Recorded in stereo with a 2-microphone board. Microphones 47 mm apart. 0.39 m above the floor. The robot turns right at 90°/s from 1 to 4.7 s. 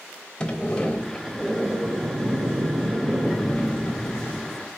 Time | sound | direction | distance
0.4 | a sliding door | 155° left | 0.8 m